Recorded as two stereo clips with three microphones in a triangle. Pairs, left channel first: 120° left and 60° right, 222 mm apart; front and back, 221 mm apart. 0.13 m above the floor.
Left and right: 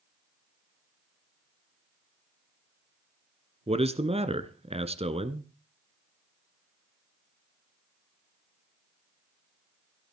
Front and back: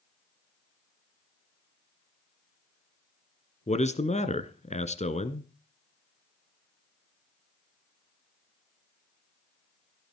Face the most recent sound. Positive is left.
turn(degrees=-25)